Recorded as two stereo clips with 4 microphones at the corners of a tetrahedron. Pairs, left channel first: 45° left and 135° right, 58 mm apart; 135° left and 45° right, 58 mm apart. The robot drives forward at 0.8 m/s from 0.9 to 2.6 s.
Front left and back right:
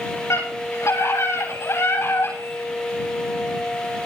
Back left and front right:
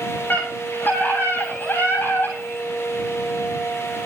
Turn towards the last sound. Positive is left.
turn(degrees=85)